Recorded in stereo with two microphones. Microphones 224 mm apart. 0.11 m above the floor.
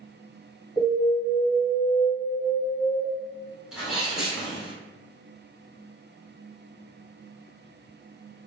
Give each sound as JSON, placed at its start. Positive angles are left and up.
{"t": 0.8, "sound": "an alarm", "side_deg": -5, "distance_m": 1.6}
{"t": 3.7, "sound": "a sneeze", "side_deg": -5, "distance_m": 1.4}